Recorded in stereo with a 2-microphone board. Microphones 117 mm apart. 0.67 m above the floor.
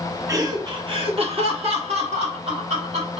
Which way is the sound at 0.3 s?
30° right (ahead or behind).